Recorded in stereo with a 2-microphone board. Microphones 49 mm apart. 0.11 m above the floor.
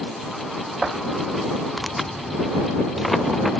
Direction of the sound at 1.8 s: Centre (ahead or behind).